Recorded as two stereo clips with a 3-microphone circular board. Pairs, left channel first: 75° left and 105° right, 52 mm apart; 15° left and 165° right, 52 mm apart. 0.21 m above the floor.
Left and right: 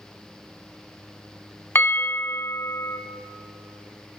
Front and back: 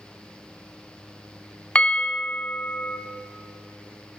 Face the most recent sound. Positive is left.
turn(degrees=75)